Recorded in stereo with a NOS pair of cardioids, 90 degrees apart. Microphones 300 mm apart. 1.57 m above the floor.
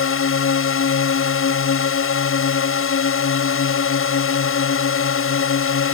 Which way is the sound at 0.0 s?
45° left.